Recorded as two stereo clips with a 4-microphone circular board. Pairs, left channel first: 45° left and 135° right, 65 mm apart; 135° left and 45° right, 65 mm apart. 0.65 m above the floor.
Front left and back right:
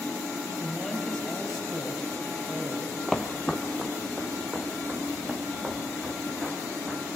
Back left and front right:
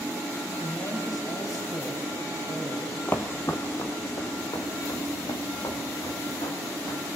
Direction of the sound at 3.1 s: 125° left.